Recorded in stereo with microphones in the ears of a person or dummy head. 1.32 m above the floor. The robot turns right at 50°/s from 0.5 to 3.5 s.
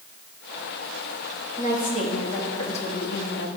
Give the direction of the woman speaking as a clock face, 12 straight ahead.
1 o'clock.